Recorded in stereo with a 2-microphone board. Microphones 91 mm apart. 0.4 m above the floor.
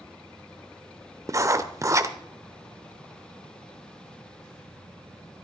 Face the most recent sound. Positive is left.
turn(degrees=-35)  # may be behind; listen again after turning